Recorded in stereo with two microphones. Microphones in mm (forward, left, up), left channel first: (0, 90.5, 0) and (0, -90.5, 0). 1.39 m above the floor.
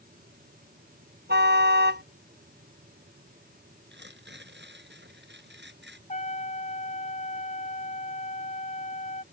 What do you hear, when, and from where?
1.3 s a car horn: 75° right (ahead or behind)
3.9 s tearing paper: 75° right (ahead or behind)
6.1 s a trumpet: 40° left (ahead or behind)